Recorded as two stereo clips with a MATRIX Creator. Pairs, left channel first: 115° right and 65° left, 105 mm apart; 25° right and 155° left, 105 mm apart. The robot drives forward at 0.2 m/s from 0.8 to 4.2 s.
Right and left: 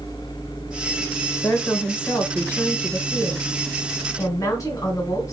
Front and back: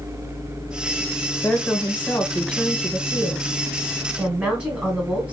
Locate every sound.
1.4 s a woman speaking: 60° right, 0.9 m; by 5.3 s 135° right, 0.9 m